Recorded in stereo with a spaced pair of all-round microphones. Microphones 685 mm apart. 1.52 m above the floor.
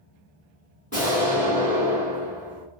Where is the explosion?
10° left (ahead or behind), 1.7 m.